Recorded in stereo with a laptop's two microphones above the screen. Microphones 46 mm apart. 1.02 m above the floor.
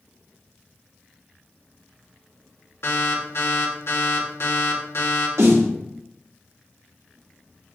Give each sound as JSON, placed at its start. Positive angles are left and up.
{"t": 2.8, "sound": "an alarm", "side_deg": 65, "distance_m": 2.5}
{"t": 5.4, "sound": "a snare drum", "side_deg": -70, "distance_m": 2.5}